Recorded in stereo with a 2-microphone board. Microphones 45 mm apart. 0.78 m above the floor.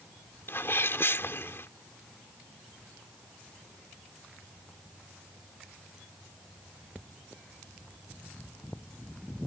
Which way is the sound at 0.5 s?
60° left (ahead or behind).